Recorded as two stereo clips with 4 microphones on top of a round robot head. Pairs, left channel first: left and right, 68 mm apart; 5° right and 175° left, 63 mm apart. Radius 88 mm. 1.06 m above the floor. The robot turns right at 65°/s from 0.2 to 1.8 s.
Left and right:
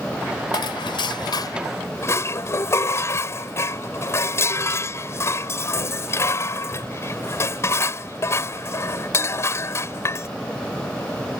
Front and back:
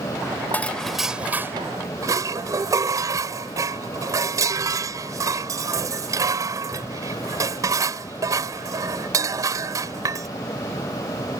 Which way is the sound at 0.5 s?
60° left.